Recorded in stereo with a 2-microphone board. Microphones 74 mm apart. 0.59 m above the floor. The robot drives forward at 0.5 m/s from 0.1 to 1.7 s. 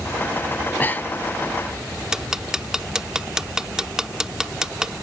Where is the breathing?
35° left (ahead or behind); by 1.3 s 20° left (ahead or behind).